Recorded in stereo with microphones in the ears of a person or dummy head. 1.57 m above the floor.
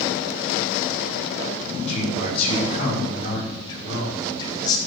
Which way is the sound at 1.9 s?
40° left (ahead or behind).